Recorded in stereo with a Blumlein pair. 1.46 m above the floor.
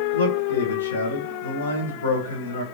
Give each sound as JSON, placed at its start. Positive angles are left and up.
{"t": 0.1, "sound": "a man speaking", "azimuth_deg": 70, "distance_m": 1.0}